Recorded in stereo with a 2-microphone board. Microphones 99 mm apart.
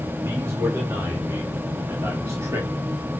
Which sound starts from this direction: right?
A man speaking, at 0.2 s.